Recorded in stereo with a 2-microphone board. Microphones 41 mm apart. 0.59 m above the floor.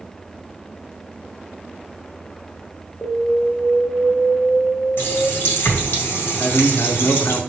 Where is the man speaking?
55° left (ahead or behind), 1.0 m.